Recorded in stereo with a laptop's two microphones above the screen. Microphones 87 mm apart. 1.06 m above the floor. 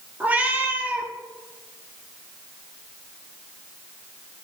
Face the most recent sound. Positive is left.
turn(degrees=-20)  # may be behind; listen again after turning